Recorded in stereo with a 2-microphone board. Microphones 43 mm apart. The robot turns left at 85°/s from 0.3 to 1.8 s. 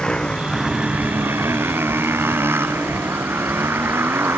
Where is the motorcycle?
15° left; by 4.4 s 110° right.